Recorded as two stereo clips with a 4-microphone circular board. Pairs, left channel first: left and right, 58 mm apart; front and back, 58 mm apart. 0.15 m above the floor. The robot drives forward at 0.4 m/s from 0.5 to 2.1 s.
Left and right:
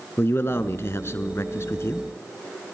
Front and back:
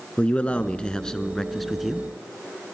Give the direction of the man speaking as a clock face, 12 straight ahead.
10 o'clock.